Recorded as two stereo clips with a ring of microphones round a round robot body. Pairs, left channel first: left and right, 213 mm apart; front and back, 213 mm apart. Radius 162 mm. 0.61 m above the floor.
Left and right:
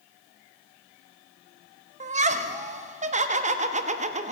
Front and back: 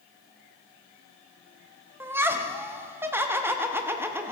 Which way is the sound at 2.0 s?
110° right.